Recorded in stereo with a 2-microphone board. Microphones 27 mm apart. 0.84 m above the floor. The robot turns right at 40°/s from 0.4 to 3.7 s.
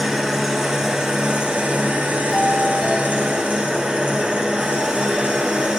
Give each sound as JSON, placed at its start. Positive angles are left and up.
{"t": 0.0, "sound": "an engine running", "azimuth_deg": 180, "distance_m": 1.9}
{"t": 2.3, "sound": "a doorbell", "side_deg": 5, "distance_m": 1.4}